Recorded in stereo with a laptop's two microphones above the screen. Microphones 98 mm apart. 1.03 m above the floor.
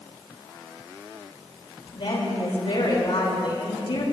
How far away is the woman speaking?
About 3.5 m.